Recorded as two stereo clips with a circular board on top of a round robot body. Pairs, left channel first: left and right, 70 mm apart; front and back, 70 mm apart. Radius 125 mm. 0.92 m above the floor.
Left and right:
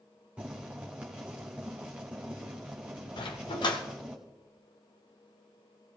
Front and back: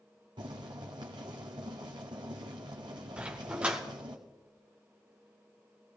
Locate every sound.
0.4 s boiling: 165° right, 1.4 m
3.2 s a dog barking: 105° left, 1.1 m